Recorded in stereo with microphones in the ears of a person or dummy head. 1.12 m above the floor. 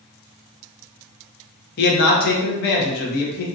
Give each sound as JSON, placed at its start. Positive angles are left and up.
{"t": 1.8, "sound": "a man speaking", "side_deg": 55, "distance_m": 0.9}